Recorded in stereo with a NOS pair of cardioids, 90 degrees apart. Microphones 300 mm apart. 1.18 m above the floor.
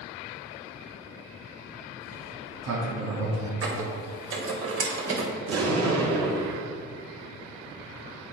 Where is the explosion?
55° right, 3 m.